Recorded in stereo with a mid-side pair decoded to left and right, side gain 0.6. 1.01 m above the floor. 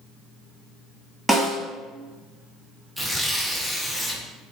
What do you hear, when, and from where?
1.3 s a snare drum: 10° right, 1.2 m
3.0 s tearing paper: straight ahead, 0.6 m